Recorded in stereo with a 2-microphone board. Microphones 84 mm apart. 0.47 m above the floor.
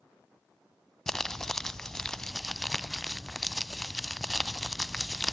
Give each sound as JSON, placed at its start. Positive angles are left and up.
{"t": 1.1, "sound": "crumpling", "side_deg": 5, "distance_m": 0.7}